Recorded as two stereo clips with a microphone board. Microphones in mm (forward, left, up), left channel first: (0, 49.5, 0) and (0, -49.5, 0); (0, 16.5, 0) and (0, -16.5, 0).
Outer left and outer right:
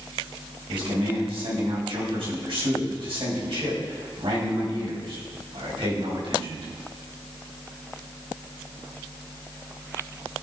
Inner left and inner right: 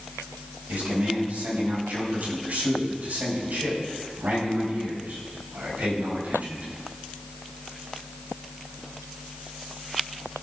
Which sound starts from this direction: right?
A man speaking, at 0.7 s.